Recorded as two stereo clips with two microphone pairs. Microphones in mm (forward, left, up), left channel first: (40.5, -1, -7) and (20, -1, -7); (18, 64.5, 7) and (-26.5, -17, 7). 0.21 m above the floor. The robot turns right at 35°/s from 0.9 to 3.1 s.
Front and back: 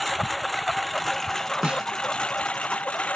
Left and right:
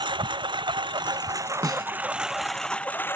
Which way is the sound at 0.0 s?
85° right.